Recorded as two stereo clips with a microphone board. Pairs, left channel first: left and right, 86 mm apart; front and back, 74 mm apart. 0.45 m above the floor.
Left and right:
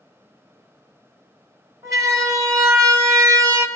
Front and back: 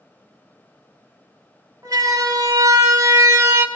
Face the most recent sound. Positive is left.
turn(degrees=-125)